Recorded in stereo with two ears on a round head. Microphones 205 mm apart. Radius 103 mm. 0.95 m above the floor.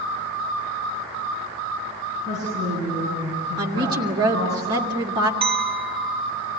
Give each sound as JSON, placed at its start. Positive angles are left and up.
{"t": 2.2, "sound": "a woman speaking", "side_deg": 15, "distance_m": 9.0}
{"t": 3.6, "sound": "a woman speaking", "side_deg": -20, "distance_m": 1.9}
{"t": 5.4, "sound": "a clink", "side_deg": -25, "distance_m": 1.3}